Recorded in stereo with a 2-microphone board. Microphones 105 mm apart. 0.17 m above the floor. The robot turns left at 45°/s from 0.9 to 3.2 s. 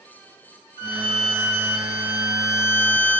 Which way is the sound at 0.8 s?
45° left.